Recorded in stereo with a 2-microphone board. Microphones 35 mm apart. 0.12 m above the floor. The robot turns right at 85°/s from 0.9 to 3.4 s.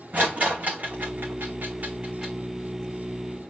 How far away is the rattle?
About 3 m.